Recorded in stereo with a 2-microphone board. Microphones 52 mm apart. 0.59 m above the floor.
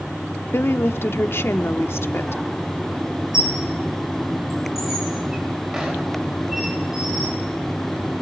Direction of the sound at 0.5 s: 50° left (ahead or behind).